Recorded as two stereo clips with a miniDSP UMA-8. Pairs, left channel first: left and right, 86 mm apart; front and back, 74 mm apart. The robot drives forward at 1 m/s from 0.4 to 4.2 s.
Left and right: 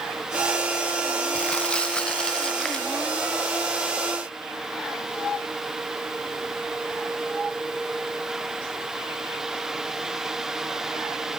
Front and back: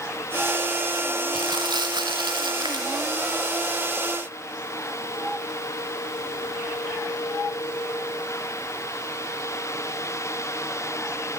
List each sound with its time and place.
1.3 s crumpling: 165° left, 2 m; by 2.9 s 175° left, 3.5 m